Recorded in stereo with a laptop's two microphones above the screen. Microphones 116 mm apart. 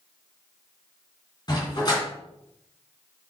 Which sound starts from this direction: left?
A dog barking, at 1.5 s.